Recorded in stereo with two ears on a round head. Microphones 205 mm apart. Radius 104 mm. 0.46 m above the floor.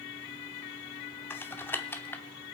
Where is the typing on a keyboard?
10° left (ahead or behind), 0.8 m.